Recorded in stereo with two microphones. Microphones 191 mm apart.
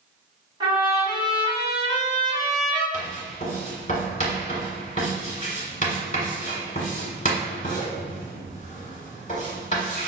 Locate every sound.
0.6 s a trumpet: 25° right (ahead or behind), 1.8 m
2.9 s writing: 40° left (ahead or behind), 1.5 m